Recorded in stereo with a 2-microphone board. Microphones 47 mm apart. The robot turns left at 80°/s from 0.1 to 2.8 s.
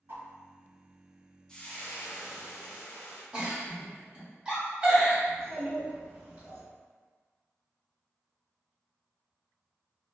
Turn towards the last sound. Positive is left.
turn(degrees=-30)  # may be behind; listen again after turning